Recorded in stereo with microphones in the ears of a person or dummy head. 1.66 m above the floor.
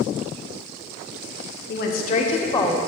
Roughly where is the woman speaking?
Left.